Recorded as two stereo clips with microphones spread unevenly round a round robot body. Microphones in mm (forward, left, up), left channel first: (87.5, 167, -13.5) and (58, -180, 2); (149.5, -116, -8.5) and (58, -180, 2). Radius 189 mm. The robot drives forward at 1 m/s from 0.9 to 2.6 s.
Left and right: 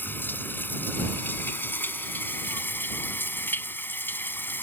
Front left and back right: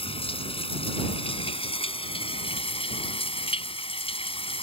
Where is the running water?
Straight ahead.